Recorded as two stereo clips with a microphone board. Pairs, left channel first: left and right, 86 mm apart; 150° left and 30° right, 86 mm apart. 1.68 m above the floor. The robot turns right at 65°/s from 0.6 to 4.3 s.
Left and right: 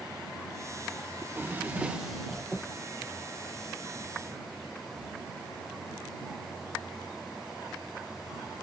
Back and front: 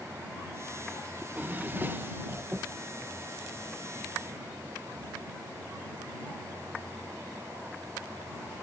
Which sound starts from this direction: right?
A drawer, at 1.2 s.